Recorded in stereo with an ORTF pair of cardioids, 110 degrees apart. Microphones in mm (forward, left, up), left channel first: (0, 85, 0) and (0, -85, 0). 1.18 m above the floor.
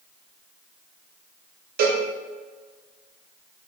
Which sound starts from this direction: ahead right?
A cowbell, at 1.8 s.